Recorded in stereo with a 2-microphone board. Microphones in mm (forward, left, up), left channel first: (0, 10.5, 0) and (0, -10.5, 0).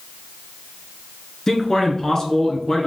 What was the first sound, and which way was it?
A man speaking, 25° left (ahead or behind).